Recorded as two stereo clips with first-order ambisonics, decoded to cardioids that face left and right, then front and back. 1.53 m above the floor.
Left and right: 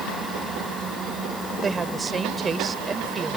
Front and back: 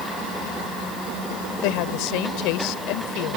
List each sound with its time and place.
1.6 s a woman speaking: 20° right